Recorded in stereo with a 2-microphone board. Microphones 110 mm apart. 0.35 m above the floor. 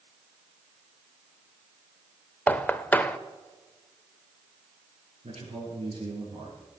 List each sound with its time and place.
2.5 s knocking: 15° left (ahead or behind), 0.5 m
5.2 s a man speaking: 80° right, 6 m